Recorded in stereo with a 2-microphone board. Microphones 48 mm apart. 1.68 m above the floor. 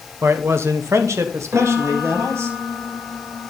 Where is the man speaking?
50° right (ahead or behind), 1.1 m; by 2.5 s 65° right (ahead or behind), 2 m.